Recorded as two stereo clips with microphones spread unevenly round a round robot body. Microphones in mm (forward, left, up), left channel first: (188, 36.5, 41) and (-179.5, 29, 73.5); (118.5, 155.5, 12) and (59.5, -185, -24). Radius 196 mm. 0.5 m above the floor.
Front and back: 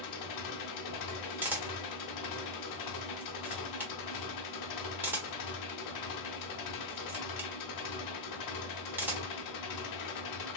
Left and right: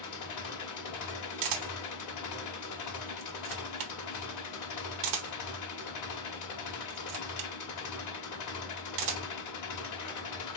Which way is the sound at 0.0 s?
40° left.